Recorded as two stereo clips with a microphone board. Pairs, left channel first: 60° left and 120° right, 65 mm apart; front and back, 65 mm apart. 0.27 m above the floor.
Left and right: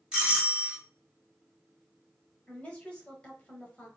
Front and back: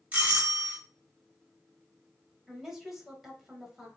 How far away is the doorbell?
About 1.4 m.